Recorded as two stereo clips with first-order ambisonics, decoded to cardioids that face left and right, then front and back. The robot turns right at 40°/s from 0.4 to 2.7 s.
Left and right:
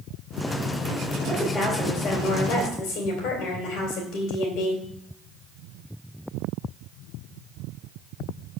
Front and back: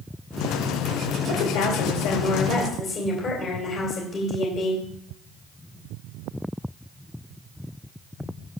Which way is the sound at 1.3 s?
5° left.